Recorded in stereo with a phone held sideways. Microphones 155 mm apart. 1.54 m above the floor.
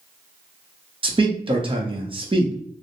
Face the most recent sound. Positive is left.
turn(degrees=-35)  # may be behind; listen again after turning